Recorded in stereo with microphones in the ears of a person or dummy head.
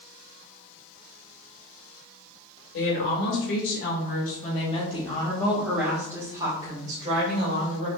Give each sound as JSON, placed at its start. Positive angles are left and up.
{"t": 2.7, "sound": "a woman speaking", "side_deg": 70, "distance_m": 2.5}